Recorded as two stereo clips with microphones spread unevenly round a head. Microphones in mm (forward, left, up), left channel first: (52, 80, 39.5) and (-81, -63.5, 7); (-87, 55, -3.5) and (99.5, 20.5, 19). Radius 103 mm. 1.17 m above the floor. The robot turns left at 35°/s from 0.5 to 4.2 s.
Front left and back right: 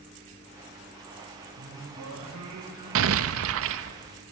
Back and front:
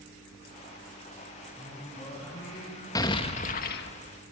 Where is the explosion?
115° right, 1.2 m; by 4.0 s 150° right, 1.2 m.